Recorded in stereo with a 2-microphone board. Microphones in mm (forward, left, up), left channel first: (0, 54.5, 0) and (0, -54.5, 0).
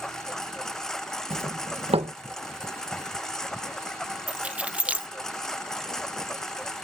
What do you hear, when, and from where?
0.0 s a lawn mower: 5° left (ahead or behind)
1.3 s a doorbell: 65° right (ahead or behind)
4.3 s keys jangling: 10° right (ahead or behind)